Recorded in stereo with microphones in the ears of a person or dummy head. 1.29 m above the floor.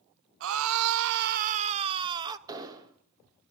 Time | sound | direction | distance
0.4 | a scream | 70° right (ahead or behind) | 0.8 m
2.5 | an explosion | 20° right (ahead or behind) | 2.5 m